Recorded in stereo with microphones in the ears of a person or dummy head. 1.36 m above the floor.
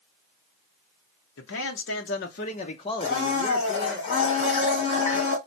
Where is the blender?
50° left (ahead or behind), 2.5 m.